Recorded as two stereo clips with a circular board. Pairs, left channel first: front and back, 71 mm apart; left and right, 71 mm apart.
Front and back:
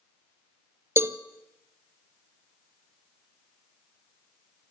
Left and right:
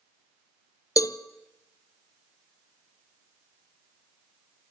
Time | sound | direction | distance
1.0 | a cowbell | 125° left | 0.7 m